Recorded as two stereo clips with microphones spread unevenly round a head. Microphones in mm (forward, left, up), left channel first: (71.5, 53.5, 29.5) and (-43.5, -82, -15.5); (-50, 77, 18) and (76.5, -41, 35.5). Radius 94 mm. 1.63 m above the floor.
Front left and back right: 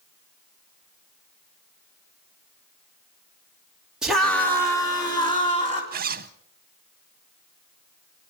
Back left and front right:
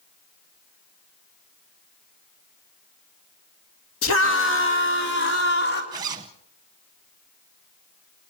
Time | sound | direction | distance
4.0 | a scream | 140° left | 1.9 m
5.9 | a zipper | 95° right | 0.7 m